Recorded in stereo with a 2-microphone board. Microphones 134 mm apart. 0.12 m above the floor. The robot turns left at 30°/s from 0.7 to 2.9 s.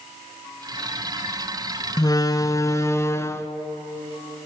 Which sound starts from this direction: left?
A door slam, at 2.0 s.